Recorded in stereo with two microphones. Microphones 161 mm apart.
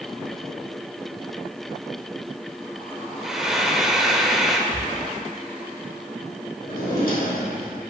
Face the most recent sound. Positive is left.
turn(degrees=75)  # may be behind; listen again after turning